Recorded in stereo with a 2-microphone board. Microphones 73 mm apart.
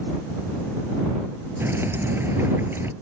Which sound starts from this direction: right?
Dripping, at 1.6 s.